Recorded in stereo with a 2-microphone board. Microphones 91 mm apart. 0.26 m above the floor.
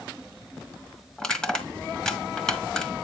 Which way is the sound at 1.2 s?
10° left (ahead or behind).